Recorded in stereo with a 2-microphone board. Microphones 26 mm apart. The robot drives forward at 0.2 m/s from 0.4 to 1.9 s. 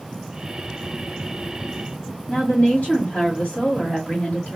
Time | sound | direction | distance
2.3 | a woman speaking | 50° left (ahead or behind) | 2.0 m